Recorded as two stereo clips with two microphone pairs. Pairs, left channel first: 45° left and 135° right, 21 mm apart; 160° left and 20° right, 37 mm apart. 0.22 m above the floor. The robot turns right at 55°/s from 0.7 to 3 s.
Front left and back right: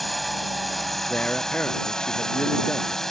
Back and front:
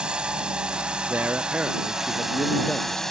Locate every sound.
0.0 s a drone: 40° right; by 3.1 s 90° left
1.1 s a man speaking: 10° left; by 3.0 s 115° left